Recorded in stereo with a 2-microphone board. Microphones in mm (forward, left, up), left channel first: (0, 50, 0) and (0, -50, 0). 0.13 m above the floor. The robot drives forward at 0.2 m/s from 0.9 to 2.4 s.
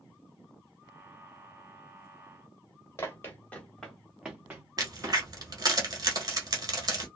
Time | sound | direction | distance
3.0 | running footsteps | 25° left (ahead or behind) | 1.2 m
4.8 | a crack | 40° right (ahead or behind) | 1.1 m